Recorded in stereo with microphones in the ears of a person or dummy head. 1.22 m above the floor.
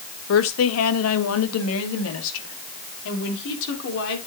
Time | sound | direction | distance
0.3 | a woman speaking | 70° left (ahead or behind) | 1.6 m